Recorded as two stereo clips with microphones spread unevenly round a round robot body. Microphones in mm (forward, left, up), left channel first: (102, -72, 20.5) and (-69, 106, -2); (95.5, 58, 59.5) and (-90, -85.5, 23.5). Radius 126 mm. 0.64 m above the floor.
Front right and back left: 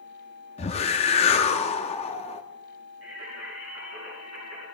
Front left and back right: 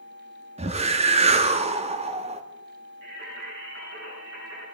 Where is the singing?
175° left, 9.5 m.